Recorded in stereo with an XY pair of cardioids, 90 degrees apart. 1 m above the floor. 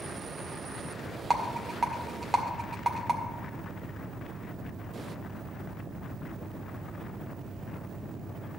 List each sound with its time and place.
1.3 s a rattle: 30° right, 1.6 m